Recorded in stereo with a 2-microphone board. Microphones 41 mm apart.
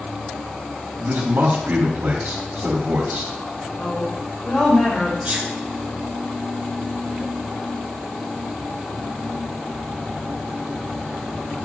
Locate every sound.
1.0 s a man speaking: 70° right (ahead or behind), 2.5 m
3.8 s a woman speaking: 20° left (ahead or behind), 2.5 m
5.2 s a sneeze: 30° right (ahead or behind), 1.6 m